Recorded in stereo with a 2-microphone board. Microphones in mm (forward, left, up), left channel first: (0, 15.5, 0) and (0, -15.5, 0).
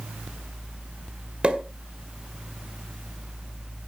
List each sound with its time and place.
1.4 s a pop: 35° right (ahead or behind), 1.8 m